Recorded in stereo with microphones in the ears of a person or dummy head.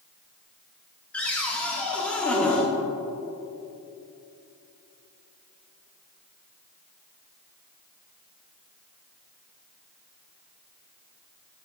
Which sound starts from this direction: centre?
A cupboard door, at 1.1 s.